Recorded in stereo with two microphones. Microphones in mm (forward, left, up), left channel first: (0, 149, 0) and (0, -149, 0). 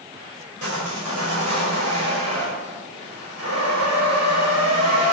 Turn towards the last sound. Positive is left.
turn(degrees=-60)  # may be behind; listen again after turning